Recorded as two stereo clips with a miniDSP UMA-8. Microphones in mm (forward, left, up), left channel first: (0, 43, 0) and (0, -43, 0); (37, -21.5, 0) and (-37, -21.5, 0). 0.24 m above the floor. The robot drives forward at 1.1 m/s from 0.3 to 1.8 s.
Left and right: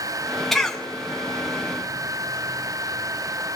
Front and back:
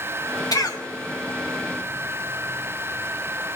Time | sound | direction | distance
0.5 | a cough | 5° left | 2.5 m